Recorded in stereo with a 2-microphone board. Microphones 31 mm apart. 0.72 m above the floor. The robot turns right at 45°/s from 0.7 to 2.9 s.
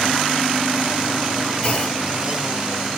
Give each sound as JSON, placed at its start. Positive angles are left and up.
{"t": 1.6, "sound": "a clunk", "side_deg": 40, "distance_m": 1.8}